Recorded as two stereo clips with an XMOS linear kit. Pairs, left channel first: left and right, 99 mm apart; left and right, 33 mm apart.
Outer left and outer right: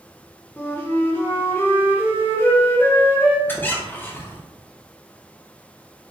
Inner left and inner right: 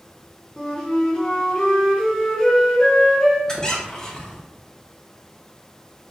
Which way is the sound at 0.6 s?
20° left (ahead or behind).